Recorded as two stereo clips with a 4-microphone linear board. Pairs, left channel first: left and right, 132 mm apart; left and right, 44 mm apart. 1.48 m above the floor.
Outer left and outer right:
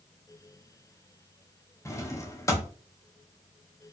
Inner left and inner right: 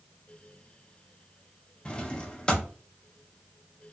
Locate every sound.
1.9 s a drawer: 20° left (ahead or behind), 0.6 m